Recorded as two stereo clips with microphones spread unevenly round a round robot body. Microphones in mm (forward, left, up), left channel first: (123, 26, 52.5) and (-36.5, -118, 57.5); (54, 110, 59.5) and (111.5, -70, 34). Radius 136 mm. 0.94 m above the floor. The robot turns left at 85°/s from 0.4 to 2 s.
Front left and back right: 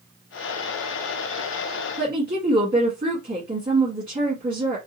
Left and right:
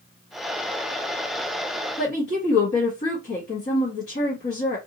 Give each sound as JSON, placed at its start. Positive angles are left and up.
{"t": 2.0, "sound": "a woman speaking", "azimuth_deg": 155, "distance_m": 1.2}